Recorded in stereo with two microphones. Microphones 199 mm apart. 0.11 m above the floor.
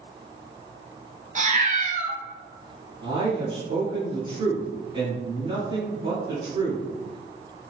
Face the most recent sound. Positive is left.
turn(degrees=-25)  # may be behind; listen again after turning